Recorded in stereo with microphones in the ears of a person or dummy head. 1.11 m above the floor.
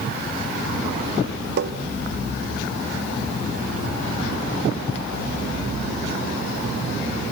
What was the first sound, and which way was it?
Tapping, 60° right (ahead or behind).